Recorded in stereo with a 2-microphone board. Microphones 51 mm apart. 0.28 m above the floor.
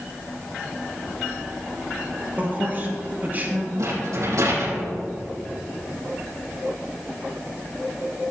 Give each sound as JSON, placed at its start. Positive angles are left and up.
{"t": 2.4, "sound": "a man speaking", "side_deg": -35, "distance_m": 4.5}
{"t": 3.8, "sound": "a rattle", "side_deg": -75, "distance_m": 5.0}